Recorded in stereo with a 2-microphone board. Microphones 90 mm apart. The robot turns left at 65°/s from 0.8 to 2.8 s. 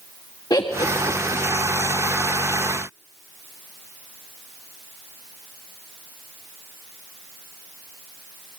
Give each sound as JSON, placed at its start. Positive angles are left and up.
{"t": 0.5, "sound": "laughter", "side_deg": 45, "distance_m": 1.4}